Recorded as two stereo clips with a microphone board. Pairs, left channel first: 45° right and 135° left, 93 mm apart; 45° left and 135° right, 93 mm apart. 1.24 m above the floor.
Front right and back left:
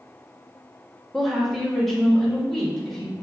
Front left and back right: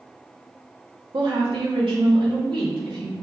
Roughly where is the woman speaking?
Behind right.